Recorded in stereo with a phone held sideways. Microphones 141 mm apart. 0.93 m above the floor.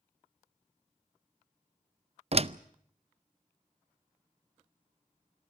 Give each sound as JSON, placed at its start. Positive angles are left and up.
{"t": 2.3, "sound": "a door slam", "side_deg": -45, "distance_m": 0.5}